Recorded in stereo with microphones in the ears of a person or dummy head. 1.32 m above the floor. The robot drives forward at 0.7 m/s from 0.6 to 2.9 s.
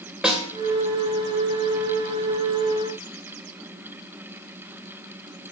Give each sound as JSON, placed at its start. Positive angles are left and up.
{"t": 0.2, "sound": "a snare drum", "side_deg": 0, "distance_m": 1.7}